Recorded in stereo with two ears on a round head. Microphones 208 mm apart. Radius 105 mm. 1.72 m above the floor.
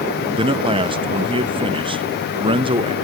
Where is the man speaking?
25° right (ahead or behind), 0.5 m.